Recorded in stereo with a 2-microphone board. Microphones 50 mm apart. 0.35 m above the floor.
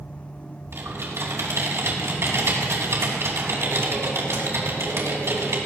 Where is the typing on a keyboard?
65° right (ahead or behind), 3 m.